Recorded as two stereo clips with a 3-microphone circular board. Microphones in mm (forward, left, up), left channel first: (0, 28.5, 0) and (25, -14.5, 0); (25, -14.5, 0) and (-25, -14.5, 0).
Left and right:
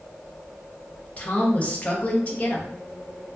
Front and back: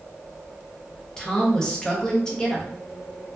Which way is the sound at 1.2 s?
75° left.